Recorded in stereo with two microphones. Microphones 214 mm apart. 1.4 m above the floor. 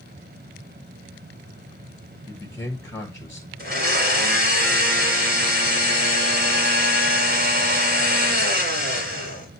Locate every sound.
2.3 s a man speaking: 15° left (ahead or behind), 1.3 m
3.6 s a blender: 45° right (ahead or behind), 3 m